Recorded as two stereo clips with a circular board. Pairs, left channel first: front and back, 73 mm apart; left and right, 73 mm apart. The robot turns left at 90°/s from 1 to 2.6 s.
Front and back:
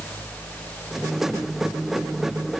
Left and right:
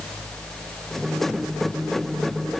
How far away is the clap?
No clap in this recording.